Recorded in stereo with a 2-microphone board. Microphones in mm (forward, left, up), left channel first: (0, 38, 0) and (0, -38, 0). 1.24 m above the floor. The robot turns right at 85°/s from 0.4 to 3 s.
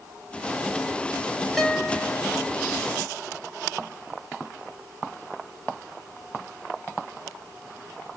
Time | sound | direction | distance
1.6 | a guitar | straight ahead | 3 m